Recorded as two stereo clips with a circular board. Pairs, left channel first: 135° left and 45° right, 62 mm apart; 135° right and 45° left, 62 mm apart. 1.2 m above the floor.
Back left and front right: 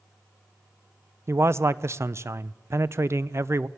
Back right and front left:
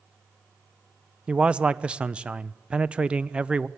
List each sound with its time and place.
1.3 s a man speaking: 25° right, 0.6 m